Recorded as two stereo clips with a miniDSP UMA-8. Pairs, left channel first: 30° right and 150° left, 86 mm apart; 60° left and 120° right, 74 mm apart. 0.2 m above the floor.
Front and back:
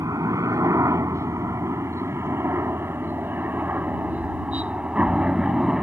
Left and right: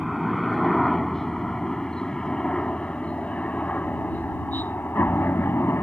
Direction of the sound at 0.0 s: 150° left.